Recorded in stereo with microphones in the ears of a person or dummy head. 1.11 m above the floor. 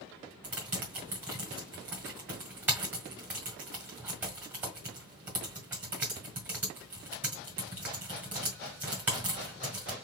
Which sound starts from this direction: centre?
Typing on a keyboard, at 0.4 s.